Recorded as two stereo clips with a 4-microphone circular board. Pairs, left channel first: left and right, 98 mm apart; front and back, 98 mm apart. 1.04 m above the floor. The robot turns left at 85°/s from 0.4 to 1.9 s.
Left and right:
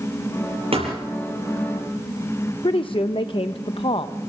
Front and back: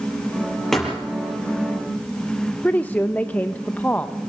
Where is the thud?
85° right, 6 m; by 1.0 s 105° right, 6 m.